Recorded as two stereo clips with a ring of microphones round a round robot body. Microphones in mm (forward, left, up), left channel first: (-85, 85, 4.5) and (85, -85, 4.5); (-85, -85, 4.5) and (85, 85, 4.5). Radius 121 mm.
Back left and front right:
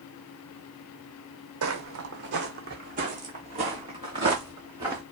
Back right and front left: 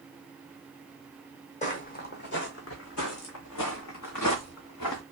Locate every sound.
1.6 s footsteps: 75° right, 1.2 m; by 5.0 s 120° right, 2.5 m